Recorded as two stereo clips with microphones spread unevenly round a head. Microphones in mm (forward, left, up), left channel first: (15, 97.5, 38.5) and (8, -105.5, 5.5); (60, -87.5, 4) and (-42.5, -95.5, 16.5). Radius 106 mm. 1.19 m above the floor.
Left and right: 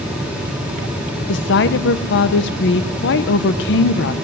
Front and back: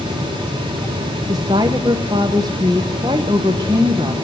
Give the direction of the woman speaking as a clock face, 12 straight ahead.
8 o'clock.